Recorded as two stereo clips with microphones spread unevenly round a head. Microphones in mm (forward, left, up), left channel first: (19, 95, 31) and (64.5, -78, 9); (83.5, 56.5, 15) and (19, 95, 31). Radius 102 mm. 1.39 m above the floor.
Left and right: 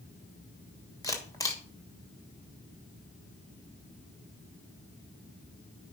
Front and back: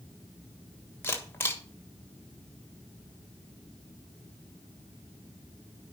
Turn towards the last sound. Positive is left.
turn(degrees=30)